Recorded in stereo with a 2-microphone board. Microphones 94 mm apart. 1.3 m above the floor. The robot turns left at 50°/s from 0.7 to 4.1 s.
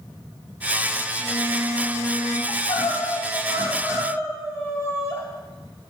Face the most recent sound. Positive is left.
turn(degrees=30)